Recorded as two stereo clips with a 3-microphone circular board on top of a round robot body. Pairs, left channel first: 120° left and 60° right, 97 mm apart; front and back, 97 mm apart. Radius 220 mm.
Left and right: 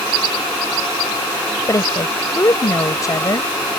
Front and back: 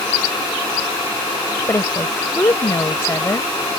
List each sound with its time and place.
1.7 s a woman speaking: 60° left